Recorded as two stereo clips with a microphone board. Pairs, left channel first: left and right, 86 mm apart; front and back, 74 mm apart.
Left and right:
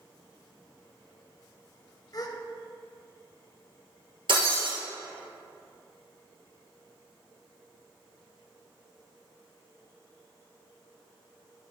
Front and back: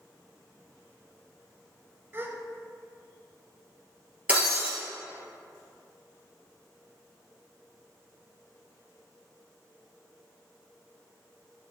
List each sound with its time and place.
2.1 s a gasp: 125° left, 0.6 m
4.3 s breaking glass: 110° right, 2.5 m